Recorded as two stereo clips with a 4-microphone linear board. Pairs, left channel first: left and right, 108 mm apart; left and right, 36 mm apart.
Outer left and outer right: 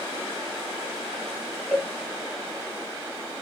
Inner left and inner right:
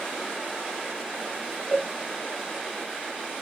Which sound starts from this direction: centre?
A cowbell, at 1.7 s.